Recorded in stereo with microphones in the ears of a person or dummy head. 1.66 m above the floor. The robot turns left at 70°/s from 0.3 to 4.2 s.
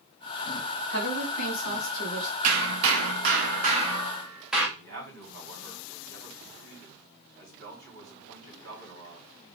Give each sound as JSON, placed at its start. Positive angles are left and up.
{"t": 0.9, "sound": "a woman speaking", "azimuth_deg": 110, "distance_m": 2.0}
{"t": 2.4, "sound": "hammering", "azimuth_deg": -60, "distance_m": 1.0}
{"t": 4.8, "sound": "a man speaking", "side_deg": -60, "distance_m": 3.0}